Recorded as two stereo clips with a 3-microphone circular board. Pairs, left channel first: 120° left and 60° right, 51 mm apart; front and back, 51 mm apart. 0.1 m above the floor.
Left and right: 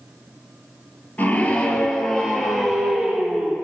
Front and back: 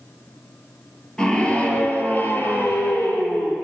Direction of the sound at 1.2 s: 70° left.